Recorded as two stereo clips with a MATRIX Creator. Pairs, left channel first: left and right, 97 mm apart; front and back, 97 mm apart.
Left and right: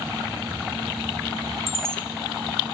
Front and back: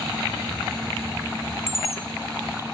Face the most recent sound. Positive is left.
turn(degrees=-95)